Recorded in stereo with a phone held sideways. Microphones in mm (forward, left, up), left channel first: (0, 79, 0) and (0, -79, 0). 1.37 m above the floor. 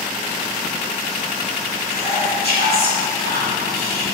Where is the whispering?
80° left, 2.5 m.